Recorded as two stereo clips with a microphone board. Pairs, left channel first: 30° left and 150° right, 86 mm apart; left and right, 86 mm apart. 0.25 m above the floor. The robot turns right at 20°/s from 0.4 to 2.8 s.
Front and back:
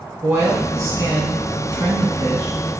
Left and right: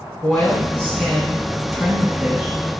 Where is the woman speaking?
165° left, 1.6 m; by 2.8 s 150° right, 1.6 m.